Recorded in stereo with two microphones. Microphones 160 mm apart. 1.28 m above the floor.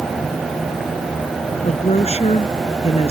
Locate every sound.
1.6 s a woman speaking: 40° left (ahead or behind)